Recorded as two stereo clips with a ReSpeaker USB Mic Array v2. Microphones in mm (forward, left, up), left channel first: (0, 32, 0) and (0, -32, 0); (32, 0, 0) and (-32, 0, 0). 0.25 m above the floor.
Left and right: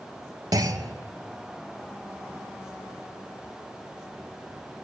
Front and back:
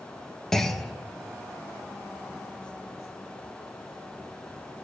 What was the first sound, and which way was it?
A clunk, 85° right.